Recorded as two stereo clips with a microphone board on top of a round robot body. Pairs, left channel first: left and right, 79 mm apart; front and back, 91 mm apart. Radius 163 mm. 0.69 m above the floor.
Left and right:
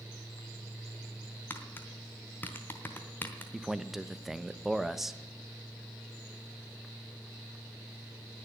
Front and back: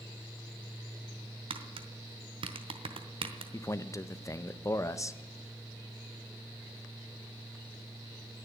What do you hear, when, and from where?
1.5 s tapping: 155° left, 0.9 m
3.5 s a man speaking: 5° right, 0.9 m